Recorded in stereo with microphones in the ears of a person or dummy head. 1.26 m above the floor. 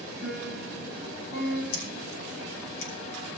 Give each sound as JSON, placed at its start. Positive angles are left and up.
{"t": 0.2, "sound": "a piano", "side_deg": 65, "distance_m": 8.5}
{"t": 1.7, "sound": "scissors", "side_deg": 85, "distance_m": 4.0}